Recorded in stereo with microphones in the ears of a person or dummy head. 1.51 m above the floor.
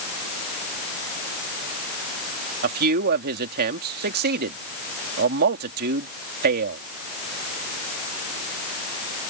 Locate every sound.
2.6 s a man speaking: 50° right (ahead or behind)